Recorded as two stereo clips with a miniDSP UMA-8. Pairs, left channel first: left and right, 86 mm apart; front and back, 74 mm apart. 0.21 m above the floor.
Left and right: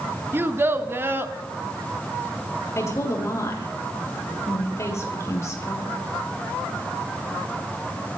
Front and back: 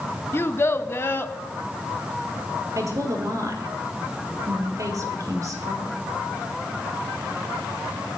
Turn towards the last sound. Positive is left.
turn(degrees=145)